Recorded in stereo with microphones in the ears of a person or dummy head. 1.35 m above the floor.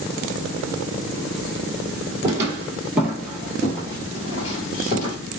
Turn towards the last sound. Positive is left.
turn(degrees=45)  # may be behind; listen again after turning